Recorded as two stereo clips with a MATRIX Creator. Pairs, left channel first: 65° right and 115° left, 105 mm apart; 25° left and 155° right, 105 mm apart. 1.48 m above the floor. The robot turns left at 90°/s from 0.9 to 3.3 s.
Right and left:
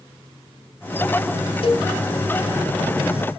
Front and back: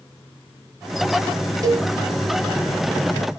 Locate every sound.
1.6 s a cowbell: 100° right, 1.2 m; by 1.9 s 125° right, 1.2 m